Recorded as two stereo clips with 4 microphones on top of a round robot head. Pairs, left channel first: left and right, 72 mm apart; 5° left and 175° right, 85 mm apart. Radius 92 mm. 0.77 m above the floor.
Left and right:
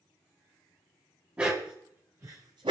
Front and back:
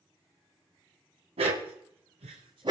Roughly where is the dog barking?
Behind.